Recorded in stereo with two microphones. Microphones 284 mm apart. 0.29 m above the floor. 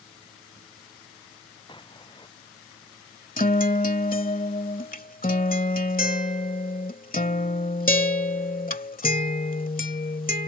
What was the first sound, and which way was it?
An explosion, 15° left (ahead or behind).